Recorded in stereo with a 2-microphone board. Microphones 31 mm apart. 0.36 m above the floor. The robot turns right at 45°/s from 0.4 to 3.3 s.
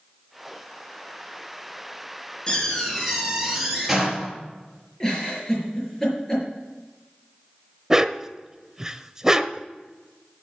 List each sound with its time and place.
2.5 s a door slam: 145° left, 4 m; by 4.4 s straight behind, 4 m
5.0 s a giggle: 20° left (ahead or behind), 6 m
7.9 s a dog barking: 15° right (ahead or behind), 0.6 m